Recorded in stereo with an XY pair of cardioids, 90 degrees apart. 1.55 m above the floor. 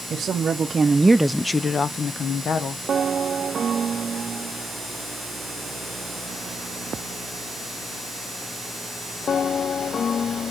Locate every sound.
0.1 s a woman speaking: 60° right, 1.0 m; by 2.8 s 70° left, 1.2 m